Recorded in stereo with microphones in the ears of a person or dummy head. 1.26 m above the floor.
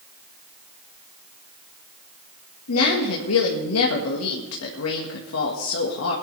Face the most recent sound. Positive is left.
turn(degrees=80)